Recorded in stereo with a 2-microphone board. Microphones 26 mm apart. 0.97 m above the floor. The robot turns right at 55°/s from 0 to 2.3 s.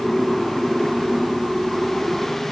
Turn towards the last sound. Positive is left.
No sound to turn to.